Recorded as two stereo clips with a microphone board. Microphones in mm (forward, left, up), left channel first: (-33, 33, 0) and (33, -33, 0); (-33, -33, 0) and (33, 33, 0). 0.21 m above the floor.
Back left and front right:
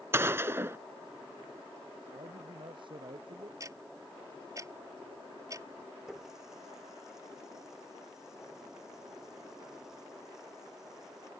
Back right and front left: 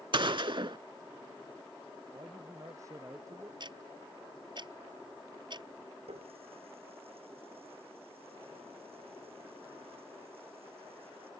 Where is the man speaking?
10° right.